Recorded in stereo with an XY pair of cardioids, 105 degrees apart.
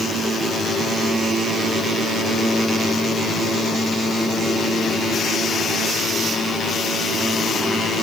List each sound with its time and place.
Only background noise.